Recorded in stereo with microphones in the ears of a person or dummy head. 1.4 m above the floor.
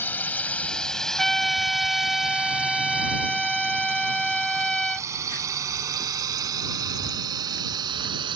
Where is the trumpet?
5° left (ahead or behind).